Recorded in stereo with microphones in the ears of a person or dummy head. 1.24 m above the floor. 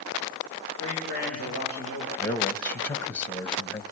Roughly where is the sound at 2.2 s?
Centre.